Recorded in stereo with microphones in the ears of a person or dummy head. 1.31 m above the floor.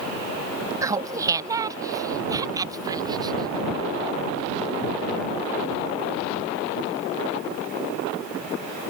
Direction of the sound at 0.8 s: 20° right (ahead or behind).